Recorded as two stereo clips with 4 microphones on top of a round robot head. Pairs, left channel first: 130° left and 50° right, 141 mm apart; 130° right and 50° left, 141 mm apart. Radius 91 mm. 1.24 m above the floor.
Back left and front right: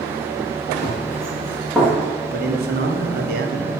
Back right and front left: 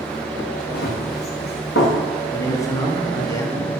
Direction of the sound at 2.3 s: 60° right.